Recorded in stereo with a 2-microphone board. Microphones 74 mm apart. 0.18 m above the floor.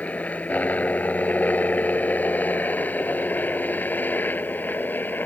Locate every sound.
0.0 s a helicopter: 20° left (ahead or behind); by 5.3 s 25° left (ahead or behind)